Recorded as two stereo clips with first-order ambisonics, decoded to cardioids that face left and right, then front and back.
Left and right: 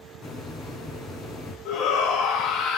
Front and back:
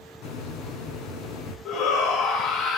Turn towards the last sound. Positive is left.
turn(degrees=45)